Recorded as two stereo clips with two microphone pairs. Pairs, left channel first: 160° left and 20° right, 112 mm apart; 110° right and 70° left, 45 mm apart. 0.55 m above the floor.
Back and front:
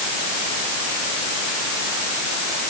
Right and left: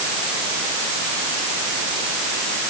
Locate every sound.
Only background noise.